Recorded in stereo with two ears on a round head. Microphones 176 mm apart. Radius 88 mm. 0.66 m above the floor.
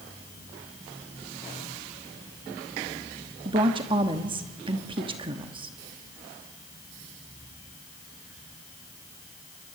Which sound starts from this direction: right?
A woman speaking, at 3.5 s.